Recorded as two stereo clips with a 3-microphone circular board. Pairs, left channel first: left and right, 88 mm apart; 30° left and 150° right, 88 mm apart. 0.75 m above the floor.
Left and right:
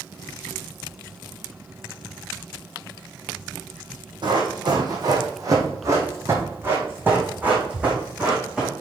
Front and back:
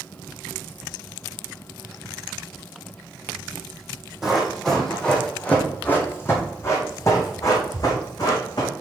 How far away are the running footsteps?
About 2.5 m.